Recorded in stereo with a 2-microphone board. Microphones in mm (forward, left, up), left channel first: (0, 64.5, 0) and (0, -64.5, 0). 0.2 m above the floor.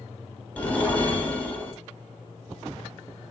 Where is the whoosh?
10° left (ahead or behind), 0.6 m.